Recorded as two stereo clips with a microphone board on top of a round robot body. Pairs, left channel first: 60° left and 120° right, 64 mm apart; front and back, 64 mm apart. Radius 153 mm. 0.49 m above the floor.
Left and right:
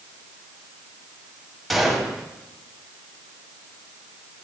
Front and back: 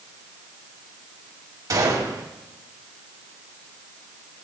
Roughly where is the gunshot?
Behind left.